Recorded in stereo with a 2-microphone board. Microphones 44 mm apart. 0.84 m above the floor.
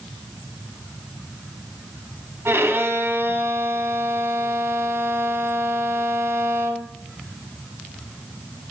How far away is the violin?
About 1.5 m.